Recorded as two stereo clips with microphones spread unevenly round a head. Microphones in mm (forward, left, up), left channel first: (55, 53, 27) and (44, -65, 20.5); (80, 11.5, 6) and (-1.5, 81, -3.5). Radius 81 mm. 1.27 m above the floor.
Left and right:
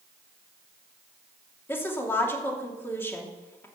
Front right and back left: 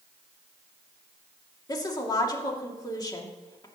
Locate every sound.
1.7 s a woman speaking: 15° left, 2.5 m